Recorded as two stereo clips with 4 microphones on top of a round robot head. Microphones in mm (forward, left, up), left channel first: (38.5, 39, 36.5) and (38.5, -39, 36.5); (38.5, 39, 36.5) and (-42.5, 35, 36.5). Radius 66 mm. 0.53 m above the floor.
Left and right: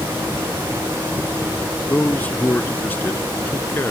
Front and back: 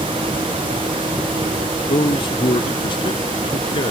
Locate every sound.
1.9 s a man speaking: 20° left; by 3.9 s 25° left